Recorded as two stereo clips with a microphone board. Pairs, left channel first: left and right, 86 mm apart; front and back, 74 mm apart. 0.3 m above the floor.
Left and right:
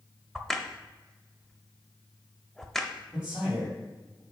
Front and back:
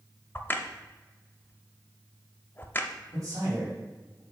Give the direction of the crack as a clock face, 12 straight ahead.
12 o'clock.